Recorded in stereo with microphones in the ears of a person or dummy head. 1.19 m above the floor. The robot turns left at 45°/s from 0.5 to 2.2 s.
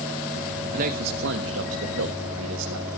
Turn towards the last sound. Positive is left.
turn(degrees=-110)